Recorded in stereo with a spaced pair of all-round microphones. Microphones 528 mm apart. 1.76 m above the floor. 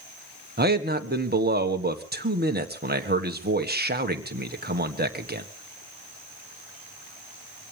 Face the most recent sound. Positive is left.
turn(degrees=-20)  # may be behind; listen again after turning